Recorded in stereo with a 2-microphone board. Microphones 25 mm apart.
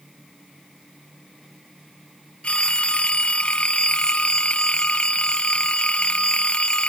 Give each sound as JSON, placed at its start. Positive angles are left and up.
{"t": 2.4, "sound": "a phone ringing", "side_deg": 50}